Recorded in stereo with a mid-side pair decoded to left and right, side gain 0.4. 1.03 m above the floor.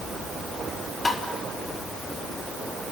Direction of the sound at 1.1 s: 30° left.